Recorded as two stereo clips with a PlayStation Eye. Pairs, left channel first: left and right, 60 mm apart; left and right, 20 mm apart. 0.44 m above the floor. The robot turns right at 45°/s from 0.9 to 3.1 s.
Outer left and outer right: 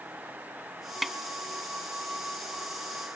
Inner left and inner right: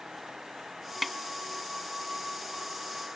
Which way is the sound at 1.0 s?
Centre (ahead or behind).